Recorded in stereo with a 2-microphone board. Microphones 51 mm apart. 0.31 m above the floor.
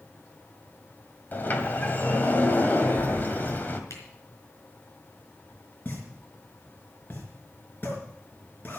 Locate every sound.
1.3 s a sliding door: 40° left (ahead or behind), 1.8 m
3.9 s a camera shutter: 75° left (ahead or behind), 4.5 m
5.8 s a pop: 40° left (ahead or behind), 4.5 m